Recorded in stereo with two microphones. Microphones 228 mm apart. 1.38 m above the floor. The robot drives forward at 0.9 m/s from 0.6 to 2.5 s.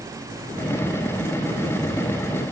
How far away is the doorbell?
No doorbell in this recording.